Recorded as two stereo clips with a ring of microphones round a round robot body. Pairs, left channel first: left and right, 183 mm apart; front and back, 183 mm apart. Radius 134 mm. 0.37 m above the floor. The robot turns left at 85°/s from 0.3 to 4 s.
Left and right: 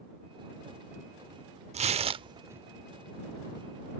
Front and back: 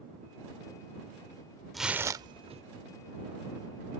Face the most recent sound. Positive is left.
turn(degrees=80)